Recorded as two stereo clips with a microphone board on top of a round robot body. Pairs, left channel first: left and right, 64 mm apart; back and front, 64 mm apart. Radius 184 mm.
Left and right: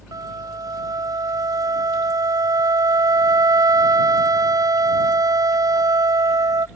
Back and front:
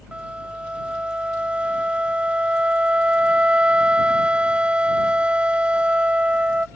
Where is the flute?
75° right.